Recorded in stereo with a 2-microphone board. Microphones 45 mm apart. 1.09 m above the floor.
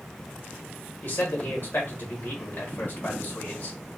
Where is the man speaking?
50° left (ahead or behind), 1.4 m.